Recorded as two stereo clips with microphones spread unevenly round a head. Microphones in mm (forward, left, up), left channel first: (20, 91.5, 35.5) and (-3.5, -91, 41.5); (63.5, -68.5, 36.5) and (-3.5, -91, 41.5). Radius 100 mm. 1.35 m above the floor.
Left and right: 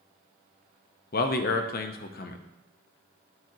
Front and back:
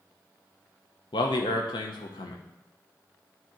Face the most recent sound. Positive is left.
turn(degrees=45)